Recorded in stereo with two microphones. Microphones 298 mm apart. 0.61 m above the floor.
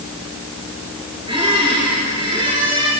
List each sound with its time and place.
1.3 s a squeak: 15° right (ahead or behind), 5.5 m